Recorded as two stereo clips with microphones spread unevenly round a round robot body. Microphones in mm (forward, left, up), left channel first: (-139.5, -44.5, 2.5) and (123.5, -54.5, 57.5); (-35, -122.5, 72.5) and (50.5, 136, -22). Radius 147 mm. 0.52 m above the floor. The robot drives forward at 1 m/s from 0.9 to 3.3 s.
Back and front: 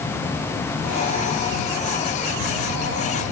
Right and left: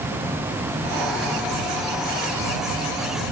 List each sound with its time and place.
Only background noise.